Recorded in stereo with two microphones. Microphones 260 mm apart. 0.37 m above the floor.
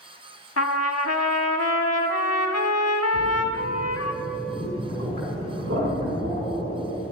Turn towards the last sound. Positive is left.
turn(degrees=-65)  # may be behind; listen again after turning